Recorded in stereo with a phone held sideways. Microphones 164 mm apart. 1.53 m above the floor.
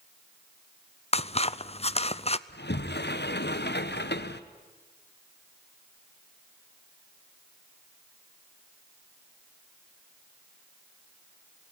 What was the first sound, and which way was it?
Scissors, 35° left (ahead or behind).